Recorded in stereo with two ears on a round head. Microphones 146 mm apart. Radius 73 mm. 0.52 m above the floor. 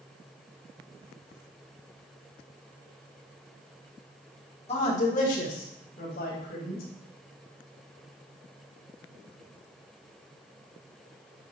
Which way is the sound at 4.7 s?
40° left (ahead or behind).